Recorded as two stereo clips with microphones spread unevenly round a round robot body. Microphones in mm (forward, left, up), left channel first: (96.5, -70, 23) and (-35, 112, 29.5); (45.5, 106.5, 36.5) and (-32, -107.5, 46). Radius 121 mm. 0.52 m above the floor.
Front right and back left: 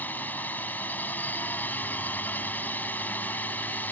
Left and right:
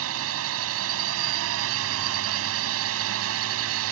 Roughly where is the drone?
Behind right.